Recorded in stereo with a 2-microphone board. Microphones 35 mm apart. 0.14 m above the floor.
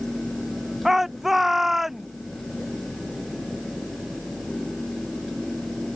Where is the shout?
5° right (ahead or behind).